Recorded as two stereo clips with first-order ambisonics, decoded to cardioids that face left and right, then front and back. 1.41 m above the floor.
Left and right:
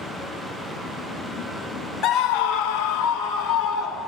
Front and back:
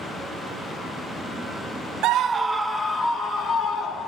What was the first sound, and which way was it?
A scream, 140° left.